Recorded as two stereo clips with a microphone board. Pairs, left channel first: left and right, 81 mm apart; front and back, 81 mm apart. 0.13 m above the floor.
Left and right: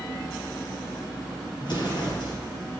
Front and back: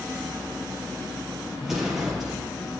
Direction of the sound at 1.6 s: 95° left.